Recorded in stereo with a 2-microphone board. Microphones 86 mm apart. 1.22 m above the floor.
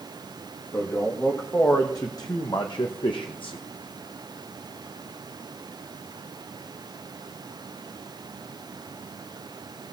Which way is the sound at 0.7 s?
25° left (ahead or behind).